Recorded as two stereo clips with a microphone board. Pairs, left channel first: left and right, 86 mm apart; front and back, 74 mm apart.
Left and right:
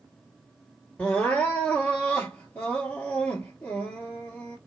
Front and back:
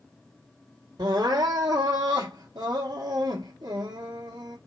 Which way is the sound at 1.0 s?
165° left.